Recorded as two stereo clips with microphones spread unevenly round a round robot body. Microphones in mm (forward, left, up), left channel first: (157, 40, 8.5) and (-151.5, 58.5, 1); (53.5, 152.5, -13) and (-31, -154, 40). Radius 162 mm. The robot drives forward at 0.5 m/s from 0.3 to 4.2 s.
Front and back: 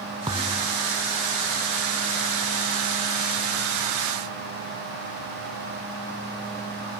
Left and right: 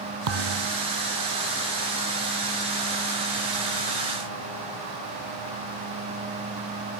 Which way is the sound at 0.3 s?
105° right.